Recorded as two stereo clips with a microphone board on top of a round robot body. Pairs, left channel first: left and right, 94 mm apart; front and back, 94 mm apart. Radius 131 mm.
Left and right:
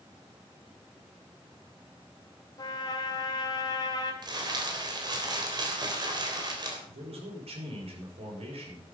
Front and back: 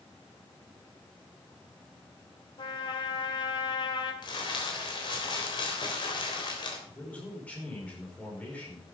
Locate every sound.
2.6 s a trumpet: 45° left, 1.9 m
4.2 s crumpling: 45° right, 3.5 m
6.9 s a man speaking: 75° right, 5.5 m